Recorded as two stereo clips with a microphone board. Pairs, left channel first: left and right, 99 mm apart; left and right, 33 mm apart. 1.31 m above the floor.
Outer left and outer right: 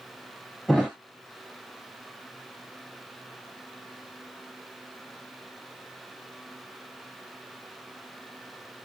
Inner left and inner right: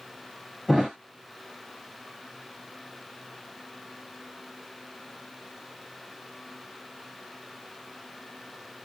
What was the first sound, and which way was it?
A thud, centre (ahead or behind).